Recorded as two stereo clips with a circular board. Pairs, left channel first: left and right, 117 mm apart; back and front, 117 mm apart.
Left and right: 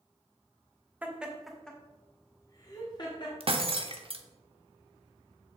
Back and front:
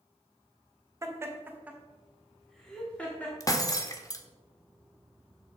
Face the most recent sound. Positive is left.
turn(degrees=-120)